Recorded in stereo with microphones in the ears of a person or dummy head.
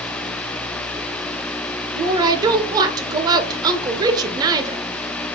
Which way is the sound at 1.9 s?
25° right (ahead or behind).